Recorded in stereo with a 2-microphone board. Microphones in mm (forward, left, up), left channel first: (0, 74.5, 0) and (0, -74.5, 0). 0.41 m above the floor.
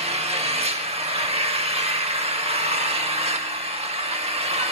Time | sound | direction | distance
0.0 | an engine running | 45° right (ahead or behind) | 0.7 m